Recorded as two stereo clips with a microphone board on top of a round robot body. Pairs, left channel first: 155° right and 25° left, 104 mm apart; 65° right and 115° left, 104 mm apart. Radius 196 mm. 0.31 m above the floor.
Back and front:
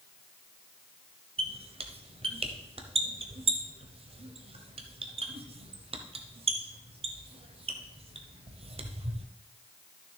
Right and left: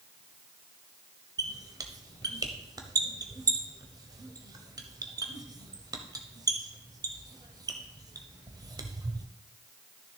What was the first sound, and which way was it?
A squeak, 55° left.